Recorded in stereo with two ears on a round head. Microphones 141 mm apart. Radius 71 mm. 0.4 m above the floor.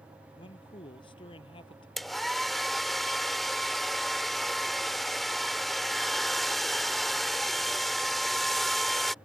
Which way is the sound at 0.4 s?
35° left (ahead or behind).